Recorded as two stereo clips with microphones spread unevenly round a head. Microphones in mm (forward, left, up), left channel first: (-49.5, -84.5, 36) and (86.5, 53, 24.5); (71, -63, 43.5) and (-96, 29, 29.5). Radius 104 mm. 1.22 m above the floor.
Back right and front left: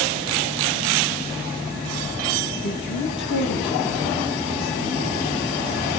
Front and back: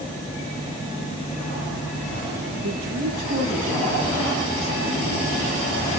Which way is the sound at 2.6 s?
175° left.